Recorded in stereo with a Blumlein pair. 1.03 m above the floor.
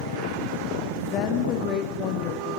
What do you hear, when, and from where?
1.1 s a woman speaking: 30° left, 2.5 m